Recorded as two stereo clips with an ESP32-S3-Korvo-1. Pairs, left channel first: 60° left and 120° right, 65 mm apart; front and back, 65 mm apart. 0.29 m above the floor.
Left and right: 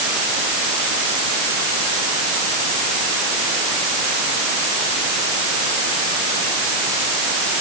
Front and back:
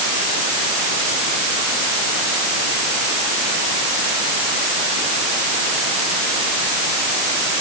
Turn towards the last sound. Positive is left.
No sound to turn to.